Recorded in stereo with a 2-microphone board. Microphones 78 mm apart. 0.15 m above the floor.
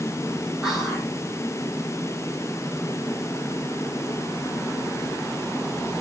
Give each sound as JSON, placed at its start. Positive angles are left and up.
{"t": 0.6, "sound": "whispering", "side_deg": 0, "distance_m": 5.0}